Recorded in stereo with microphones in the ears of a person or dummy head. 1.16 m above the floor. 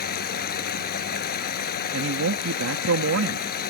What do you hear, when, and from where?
0.0 s running water: 45° left (ahead or behind)
1.9 s a man speaking: 80° right